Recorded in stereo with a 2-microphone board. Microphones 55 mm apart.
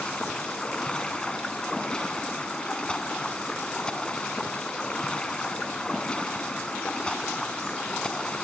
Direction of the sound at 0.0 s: 15° left (ahead or behind).